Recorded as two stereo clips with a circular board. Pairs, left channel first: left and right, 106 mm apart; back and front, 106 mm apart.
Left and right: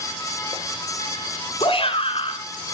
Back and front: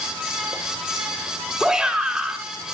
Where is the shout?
85° left, 3.5 m.